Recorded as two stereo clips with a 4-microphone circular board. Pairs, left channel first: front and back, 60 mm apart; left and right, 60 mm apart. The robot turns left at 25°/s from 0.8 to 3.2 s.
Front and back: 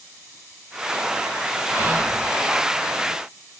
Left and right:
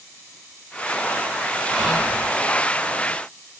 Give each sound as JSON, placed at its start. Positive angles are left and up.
{"t": 1.7, "sound": "whispering", "azimuth_deg": 170, "distance_m": 1.1}